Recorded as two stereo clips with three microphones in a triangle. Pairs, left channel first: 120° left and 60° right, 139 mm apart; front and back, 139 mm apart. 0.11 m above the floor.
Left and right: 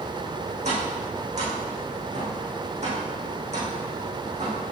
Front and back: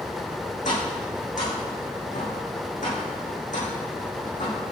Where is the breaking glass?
No breaking glass in this recording.